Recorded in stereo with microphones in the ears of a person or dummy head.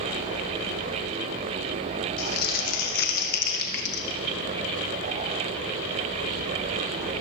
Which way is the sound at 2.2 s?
50° left (ahead or behind).